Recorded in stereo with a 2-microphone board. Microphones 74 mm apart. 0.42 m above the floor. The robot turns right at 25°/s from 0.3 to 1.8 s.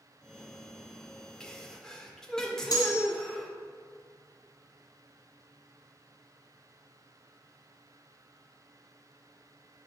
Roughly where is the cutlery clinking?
Left.